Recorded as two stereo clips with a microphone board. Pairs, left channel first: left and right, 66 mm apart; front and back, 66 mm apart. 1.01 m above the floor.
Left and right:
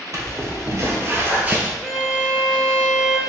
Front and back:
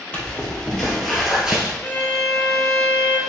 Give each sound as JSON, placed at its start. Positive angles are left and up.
{"t": 0.1, "sound": "footsteps", "azimuth_deg": -70, "distance_m": 1.7}
{"t": 1.8, "sound": "a violin", "azimuth_deg": 25, "distance_m": 0.8}